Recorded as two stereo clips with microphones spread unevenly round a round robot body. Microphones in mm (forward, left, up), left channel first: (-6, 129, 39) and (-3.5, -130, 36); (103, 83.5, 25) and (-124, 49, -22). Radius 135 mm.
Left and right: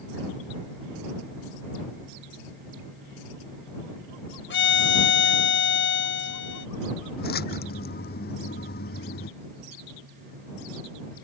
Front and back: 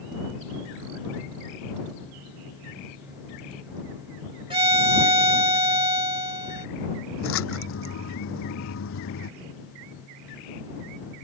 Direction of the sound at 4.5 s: 130° left.